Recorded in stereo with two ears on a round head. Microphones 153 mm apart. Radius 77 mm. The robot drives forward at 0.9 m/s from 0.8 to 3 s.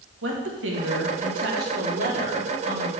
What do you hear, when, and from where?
0.2 s a woman speaking: 80° right, 1.6 m; by 2.9 s 40° right (ahead or behind), 2.5 m